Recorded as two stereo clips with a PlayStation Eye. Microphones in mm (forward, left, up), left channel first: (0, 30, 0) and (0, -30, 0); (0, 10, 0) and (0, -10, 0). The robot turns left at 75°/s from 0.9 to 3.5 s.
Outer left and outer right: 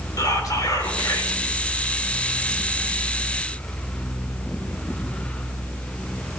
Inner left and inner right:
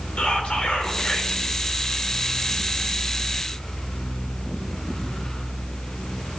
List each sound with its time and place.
0.2 s whispering: 85° left, 3.5 m; by 1.4 s 45° left, 3.5 m